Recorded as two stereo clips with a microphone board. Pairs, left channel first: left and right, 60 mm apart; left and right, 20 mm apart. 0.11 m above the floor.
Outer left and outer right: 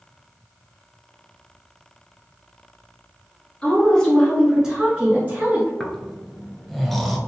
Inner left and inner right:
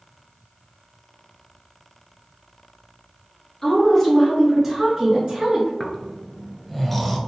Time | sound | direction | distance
3.6 | a woman speaking | 20° left (ahead or behind) | 1.6 m
5.8 | snoring | 5° left (ahead or behind) | 0.5 m